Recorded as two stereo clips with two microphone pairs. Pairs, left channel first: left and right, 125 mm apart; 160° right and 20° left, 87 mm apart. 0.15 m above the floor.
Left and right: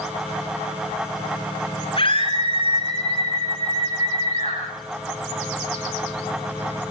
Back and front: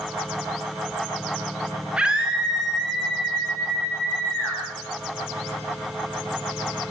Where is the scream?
90° left, 2 m; by 4.6 s 115° left, 5 m.